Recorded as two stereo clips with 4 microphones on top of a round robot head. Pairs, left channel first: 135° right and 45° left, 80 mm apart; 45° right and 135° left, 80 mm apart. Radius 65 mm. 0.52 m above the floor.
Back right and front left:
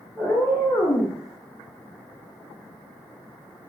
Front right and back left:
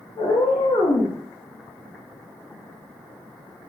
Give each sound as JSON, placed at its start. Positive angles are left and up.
{"t": 0.2, "sound": "a cat meowing", "azimuth_deg": -55, "distance_m": 0.9}